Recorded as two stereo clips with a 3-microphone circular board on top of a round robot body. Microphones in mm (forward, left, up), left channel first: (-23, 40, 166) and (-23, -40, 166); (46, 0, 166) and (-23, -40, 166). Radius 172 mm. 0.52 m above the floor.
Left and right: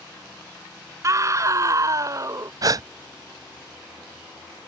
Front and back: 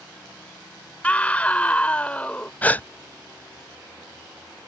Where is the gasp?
40° right.